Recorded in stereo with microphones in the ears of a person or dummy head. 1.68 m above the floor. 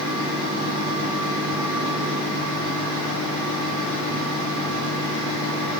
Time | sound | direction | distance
0.0 | a fan | 45° left (ahead or behind) | 3.5 m